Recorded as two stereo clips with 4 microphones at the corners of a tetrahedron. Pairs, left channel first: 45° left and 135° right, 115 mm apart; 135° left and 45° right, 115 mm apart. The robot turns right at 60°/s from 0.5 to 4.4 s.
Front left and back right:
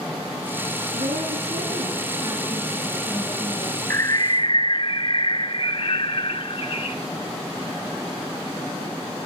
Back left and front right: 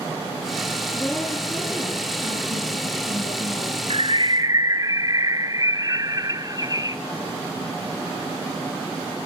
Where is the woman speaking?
160° right, 7 m; by 3.8 s 15° left, 7 m.